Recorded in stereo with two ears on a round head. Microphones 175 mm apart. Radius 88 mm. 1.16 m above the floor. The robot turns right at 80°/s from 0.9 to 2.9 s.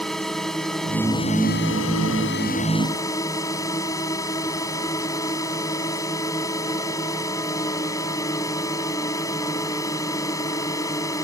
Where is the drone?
Straight ahead; by 11.2 s 160° left.